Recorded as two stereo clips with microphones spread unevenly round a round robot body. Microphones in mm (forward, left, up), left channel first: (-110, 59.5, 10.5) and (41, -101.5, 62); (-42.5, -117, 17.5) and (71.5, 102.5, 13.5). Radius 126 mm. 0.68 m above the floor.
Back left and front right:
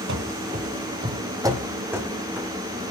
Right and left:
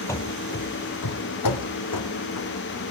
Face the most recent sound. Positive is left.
turn(degrees=-130)